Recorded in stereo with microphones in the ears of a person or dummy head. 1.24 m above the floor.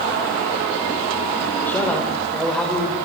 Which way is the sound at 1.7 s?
10° left (ahead or behind).